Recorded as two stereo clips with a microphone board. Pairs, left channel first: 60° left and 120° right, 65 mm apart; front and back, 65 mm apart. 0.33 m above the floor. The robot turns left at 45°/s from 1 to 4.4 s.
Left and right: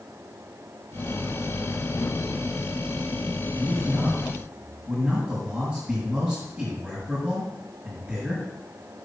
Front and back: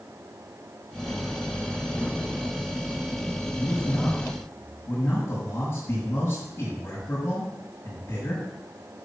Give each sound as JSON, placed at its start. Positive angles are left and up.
{"t": 3.5, "sound": "a man speaking", "azimuth_deg": -15, "distance_m": 6.0}